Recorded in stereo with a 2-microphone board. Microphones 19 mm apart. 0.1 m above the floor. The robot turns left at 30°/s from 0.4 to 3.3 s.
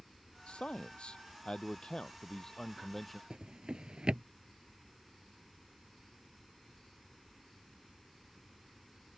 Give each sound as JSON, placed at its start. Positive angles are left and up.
{"t": 0.5, "sound": "a man speaking", "azimuth_deg": 90}
{"t": 3.3, "sound": "a drawer", "side_deg": -50}